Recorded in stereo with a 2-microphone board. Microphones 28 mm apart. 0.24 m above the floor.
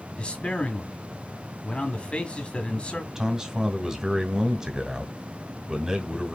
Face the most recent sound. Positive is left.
turn(degrees=-20)  # may be behind; listen again after turning